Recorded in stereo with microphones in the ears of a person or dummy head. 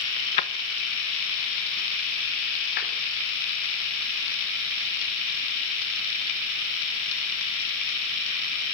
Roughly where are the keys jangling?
Centre.